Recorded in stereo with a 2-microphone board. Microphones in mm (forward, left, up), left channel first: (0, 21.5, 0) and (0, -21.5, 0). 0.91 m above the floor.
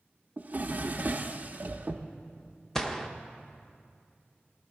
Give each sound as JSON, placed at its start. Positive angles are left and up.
{"t": 0.4, "sound": "a drawer", "side_deg": -40, "distance_m": 0.5}
{"t": 2.8, "sound": "a gunshot", "side_deg": 15, "distance_m": 0.6}